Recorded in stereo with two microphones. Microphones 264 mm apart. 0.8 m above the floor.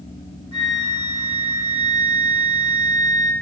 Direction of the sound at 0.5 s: 85° left.